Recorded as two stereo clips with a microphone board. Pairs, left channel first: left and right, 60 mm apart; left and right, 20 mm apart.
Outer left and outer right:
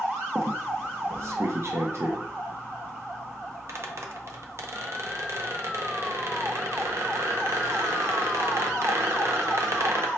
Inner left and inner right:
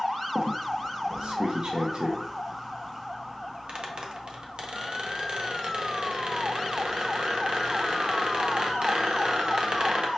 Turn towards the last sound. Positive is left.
turn(degrees=-50)  # may be behind; listen again after turning